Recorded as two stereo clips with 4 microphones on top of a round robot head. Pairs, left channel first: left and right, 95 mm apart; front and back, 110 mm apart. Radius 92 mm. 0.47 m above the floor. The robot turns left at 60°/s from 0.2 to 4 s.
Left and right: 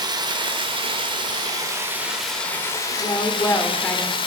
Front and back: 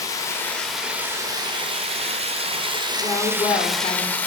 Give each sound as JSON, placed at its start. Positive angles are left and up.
{"t": 0.0, "sound": "running water", "azimuth_deg": -55, "distance_m": 1.5}
{"t": 3.0, "sound": "a woman speaking", "azimuth_deg": 70, "distance_m": 1.8}